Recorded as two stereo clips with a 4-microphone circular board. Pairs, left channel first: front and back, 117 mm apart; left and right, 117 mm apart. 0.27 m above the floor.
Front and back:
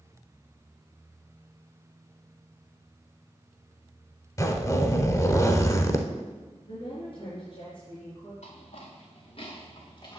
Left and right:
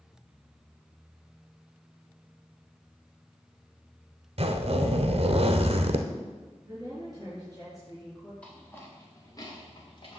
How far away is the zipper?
About 0.8 m.